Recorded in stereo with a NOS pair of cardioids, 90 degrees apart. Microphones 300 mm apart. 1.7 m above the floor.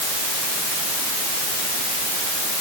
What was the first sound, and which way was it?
Only background noise.